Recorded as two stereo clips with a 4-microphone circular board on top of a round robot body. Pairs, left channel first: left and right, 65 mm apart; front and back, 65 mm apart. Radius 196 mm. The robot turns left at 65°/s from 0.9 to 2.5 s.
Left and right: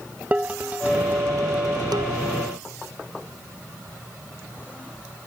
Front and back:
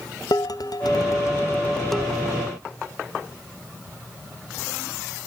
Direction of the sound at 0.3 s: 20° right.